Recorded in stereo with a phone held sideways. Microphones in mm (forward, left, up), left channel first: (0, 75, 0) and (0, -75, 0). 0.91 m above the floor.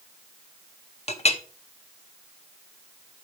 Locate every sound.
1.1 s a clink: 45° left (ahead or behind), 0.7 m